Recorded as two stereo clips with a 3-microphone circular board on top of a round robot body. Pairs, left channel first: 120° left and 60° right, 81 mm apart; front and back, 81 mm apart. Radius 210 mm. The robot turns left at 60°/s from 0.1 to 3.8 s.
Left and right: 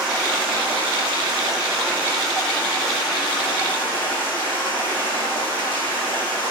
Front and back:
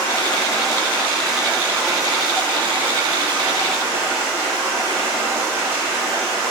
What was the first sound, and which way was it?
Running water, 20° right.